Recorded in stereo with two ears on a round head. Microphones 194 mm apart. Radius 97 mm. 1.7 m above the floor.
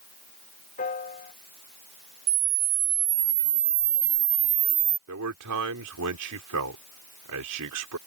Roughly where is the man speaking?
Right.